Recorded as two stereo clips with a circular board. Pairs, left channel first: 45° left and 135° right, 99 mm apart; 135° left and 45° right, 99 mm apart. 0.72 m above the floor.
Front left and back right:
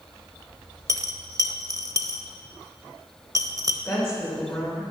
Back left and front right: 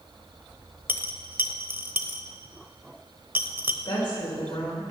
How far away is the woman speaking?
About 3 m.